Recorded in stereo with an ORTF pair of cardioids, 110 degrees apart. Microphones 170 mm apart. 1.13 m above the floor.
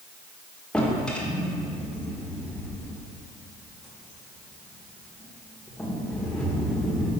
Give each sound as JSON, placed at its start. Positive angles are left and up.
{"t": 0.7, "sound": "a drawer", "azimuth_deg": 5, "distance_m": 1.7}